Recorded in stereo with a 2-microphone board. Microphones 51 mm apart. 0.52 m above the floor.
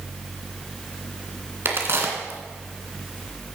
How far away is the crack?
About 2 m.